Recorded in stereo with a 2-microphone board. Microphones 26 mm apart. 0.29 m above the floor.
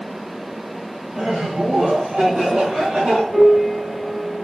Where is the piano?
60° right (ahead or behind), 3 m.